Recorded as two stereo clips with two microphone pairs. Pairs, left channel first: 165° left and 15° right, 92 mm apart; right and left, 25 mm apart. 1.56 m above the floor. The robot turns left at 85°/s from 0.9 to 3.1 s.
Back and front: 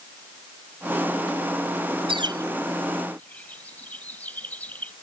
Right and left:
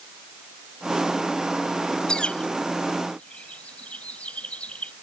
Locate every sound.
2.1 s a bird: 35° right; by 4.9 s 120° right